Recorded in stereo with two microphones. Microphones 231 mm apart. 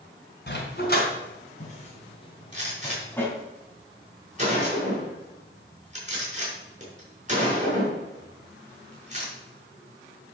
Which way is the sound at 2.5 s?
35° right (ahead or behind).